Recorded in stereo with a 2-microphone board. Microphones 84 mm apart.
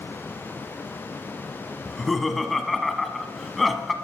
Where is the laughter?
Centre (ahead or behind), 1.0 m.